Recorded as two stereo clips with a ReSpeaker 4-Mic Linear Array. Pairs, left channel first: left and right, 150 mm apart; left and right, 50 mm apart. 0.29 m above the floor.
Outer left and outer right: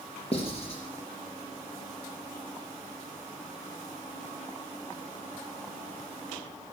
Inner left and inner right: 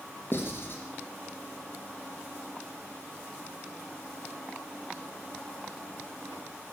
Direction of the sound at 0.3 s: 40° left (ahead or behind).